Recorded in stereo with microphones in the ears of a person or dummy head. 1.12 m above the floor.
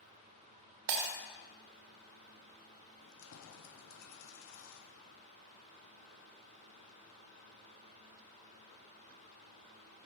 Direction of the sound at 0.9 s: 55° right (ahead or behind).